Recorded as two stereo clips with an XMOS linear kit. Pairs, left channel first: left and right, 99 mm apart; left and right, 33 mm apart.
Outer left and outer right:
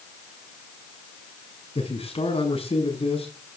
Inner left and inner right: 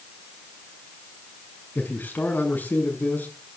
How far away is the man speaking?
About 7 m.